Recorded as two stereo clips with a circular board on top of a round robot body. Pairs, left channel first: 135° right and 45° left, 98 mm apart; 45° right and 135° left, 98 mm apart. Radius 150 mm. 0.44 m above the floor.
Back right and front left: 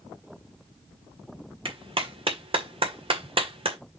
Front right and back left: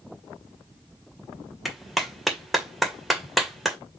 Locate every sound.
1.6 s a clap: 45° left, 2 m